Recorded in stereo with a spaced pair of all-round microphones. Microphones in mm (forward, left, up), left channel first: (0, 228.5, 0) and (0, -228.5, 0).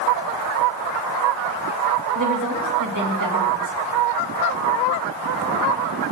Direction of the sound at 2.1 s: 40° right (ahead or behind).